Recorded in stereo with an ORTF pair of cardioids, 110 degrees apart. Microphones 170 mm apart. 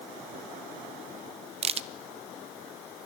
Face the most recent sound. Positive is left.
turn(degrees=-35)